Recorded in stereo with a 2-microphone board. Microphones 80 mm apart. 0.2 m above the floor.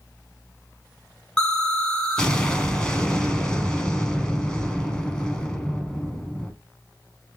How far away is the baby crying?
I don't hear a baby crying.